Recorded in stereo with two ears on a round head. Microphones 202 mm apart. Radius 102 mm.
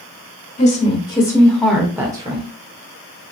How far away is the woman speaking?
About 1.8 m.